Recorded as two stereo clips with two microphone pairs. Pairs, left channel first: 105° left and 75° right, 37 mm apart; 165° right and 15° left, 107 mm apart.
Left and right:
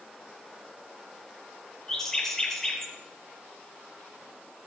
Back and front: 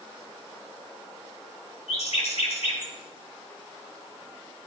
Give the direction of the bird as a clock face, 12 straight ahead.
6 o'clock.